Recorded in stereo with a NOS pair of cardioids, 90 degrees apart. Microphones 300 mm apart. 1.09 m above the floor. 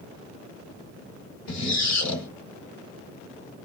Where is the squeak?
60° left, 1.5 m.